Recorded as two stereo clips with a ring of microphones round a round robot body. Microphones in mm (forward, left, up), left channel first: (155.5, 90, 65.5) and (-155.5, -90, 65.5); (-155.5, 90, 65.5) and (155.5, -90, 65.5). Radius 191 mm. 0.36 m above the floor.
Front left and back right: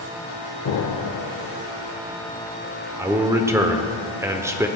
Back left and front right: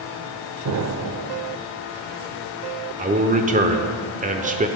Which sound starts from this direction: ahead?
An explosion, at 0.7 s.